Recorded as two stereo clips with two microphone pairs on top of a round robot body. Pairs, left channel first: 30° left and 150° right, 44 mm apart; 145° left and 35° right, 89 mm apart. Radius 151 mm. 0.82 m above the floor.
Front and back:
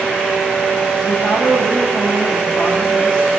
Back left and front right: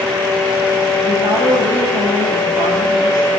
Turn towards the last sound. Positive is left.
turn(degrees=5)